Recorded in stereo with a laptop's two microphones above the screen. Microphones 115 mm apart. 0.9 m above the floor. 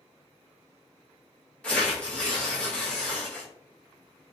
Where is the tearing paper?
10° left (ahead or behind), 0.6 m.